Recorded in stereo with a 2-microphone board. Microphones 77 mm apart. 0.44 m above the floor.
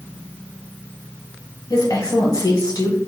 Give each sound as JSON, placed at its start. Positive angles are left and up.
{"t": 1.7, "sound": "a woman speaking", "side_deg": 60, "distance_m": 1.7}